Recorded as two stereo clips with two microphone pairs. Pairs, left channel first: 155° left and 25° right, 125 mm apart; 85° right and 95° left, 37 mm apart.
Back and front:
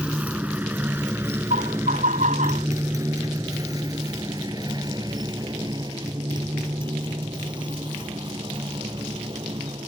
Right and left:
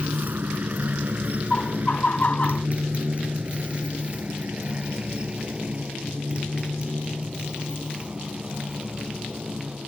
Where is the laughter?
35° right.